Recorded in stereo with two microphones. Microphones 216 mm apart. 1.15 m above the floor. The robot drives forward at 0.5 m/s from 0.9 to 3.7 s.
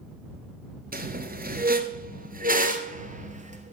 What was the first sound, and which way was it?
A squeak, 45° right (ahead or behind).